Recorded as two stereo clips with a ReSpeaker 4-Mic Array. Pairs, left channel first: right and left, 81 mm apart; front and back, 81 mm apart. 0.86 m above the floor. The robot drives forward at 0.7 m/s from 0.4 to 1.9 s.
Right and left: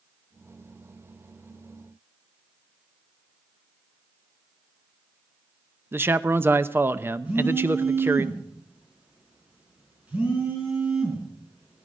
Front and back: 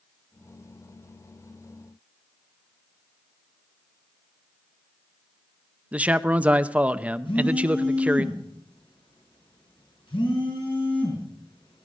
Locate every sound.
5.9 s a man speaking: 120° left, 0.6 m
7.2 s a phone buzzing: 15° left, 5.5 m